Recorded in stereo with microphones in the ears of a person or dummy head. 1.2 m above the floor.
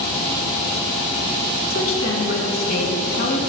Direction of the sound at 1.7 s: 50° left (ahead or behind).